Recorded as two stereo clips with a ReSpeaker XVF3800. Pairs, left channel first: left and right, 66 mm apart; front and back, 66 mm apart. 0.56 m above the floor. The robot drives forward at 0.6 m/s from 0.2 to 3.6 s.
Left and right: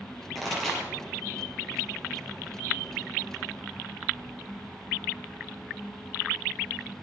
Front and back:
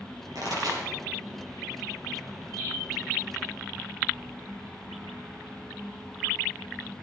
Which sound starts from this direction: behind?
A pop, at 0.3 s.